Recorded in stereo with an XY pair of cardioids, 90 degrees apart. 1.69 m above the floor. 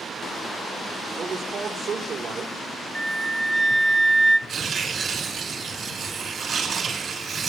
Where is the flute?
10° right, 0.6 m.